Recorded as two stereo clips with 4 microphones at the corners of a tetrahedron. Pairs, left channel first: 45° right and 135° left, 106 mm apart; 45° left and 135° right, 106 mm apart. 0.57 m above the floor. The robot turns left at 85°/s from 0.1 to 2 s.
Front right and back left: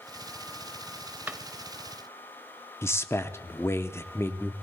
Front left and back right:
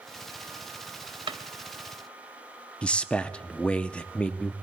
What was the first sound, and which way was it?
A drawer, 155° right.